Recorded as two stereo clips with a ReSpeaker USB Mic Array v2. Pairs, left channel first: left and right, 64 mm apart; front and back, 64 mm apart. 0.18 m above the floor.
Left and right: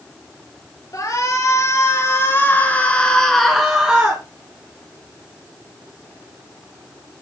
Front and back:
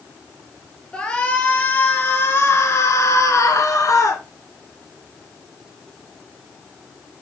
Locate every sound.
0.9 s a shout: 75° left, 4 m; by 4.2 s 25° right, 3 m